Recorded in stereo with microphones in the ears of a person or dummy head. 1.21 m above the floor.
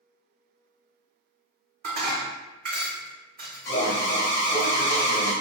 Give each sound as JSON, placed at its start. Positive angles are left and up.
{"t": 1.8, "sound": "dishes clattering", "side_deg": -60, "distance_m": 1.4}
{"t": 3.6, "sound": "an alarm", "side_deg": 15, "distance_m": 0.6}